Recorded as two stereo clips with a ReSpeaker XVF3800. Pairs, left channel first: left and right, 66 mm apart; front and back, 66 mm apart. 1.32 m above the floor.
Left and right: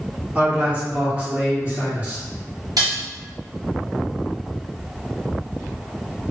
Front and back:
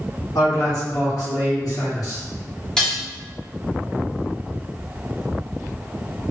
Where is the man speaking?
20° right, 1.2 m.